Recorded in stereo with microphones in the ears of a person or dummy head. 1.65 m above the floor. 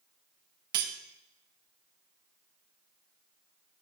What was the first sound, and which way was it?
Cutlery clinking, 50° right (ahead or behind).